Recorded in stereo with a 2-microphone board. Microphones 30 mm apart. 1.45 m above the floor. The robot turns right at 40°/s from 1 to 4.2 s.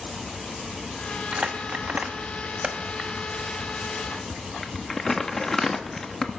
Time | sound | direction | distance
1.3 | crumpling | 50° right (ahead or behind) | 1.1 m